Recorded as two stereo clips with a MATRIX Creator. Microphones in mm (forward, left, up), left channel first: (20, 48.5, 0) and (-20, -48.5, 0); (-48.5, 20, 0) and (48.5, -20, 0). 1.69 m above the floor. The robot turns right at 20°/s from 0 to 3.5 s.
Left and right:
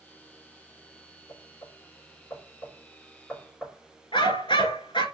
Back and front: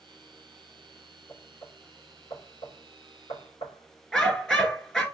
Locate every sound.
1.3 s knocking: 105° left, 5 m; by 4.8 s 145° left, 5 m
4.1 s a dog barking: 80° left, 2 m